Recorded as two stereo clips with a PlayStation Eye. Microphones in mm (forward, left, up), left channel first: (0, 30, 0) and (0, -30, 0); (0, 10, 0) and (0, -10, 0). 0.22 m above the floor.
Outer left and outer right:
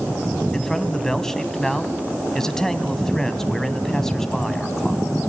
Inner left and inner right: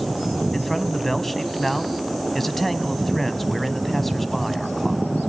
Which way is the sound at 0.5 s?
10° left (ahead or behind).